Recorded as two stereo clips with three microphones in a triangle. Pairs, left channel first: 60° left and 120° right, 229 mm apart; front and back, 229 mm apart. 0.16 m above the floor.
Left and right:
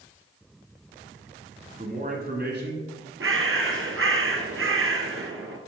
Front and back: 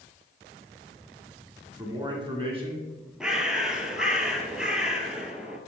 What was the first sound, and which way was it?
A man speaking, 125° right.